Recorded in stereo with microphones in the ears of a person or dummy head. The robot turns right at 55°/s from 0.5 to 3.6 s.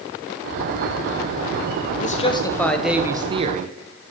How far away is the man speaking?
About 1.1 m.